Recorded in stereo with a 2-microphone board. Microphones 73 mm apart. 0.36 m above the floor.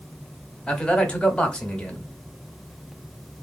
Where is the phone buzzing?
I don't hear a phone buzzing.